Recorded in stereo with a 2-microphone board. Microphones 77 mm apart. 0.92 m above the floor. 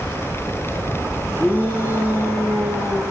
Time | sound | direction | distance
1.4 | a shout | 30° left (ahead or behind) | 8 m